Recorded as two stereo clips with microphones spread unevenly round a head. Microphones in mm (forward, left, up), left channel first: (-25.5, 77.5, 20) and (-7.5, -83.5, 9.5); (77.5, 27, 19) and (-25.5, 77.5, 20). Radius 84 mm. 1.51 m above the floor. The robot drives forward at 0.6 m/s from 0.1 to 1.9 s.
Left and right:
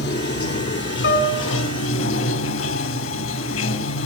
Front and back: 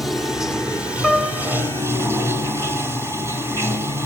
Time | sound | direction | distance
0.0 | running water | 65° left | 3 m
1.0 | a piano | 65° left | 4 m